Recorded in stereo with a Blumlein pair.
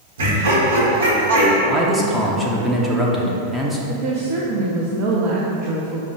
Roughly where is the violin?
I don't hear a violin.